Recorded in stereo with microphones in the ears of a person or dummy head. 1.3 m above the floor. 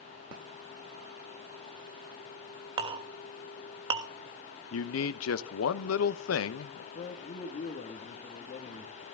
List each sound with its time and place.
2.8 s a clink: 30° right (ahead or behind), 1.1 m
4.7 s a man speaking: 85° left, 1.0 m
7.0 s a man speaking: 35° left (ahead or behind), 2.0 m